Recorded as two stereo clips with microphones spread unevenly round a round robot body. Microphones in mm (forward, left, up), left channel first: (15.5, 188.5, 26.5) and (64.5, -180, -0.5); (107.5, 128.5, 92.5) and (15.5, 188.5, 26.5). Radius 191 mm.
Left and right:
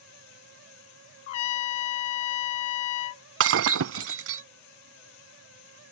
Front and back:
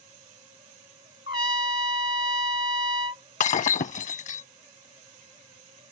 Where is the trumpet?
110° left.